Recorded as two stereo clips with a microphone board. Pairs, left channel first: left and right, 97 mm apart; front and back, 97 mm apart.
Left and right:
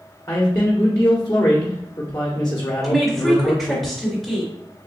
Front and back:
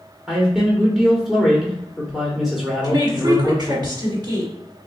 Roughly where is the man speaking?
Left.